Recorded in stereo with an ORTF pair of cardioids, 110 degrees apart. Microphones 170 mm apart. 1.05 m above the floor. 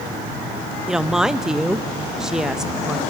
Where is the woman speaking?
5° right, 0.7 m.